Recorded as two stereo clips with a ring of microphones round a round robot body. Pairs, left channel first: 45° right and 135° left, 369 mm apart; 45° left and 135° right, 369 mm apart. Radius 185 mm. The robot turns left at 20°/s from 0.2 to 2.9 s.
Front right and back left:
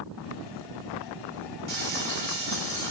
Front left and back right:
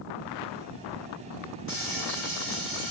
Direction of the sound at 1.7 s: 100° left.